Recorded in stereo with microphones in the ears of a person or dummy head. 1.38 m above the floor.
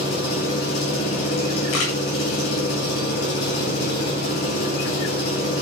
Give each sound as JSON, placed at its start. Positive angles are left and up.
{"t": 0.0, "sound": "an engine running", "side_deg": 45, "distance_m": 8.0}
{"t": 1.7, "sound": "a camera shutter", "side_deg": 60, "distance_m": 8.5}